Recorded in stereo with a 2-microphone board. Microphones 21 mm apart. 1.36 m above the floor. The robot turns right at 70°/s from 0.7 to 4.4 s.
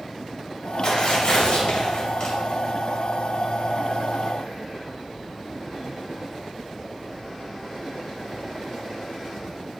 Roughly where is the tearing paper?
Ahead left.